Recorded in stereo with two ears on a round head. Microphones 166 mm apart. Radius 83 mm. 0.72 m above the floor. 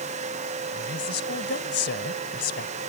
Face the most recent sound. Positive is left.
turn(degrees=70)  # may be behind; listen again after turning